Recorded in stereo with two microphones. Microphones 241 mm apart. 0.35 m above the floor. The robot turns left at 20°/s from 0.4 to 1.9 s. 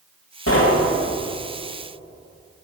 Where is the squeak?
No squeak in this recording.